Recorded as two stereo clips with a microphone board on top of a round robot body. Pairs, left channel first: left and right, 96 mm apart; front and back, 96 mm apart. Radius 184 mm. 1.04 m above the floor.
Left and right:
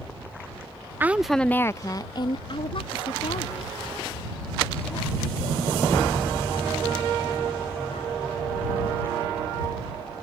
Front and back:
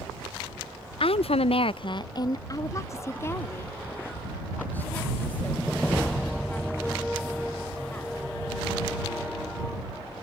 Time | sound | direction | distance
1.0 | a woman speaking | 20° right | ?